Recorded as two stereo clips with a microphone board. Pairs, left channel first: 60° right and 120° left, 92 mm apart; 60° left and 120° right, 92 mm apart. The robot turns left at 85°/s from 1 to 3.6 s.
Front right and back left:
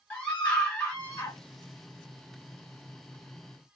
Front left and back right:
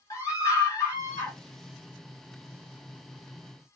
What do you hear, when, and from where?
0.1 s a scream: 10° left, 2.5 m; by 1.4 s 20° right, 2.5 m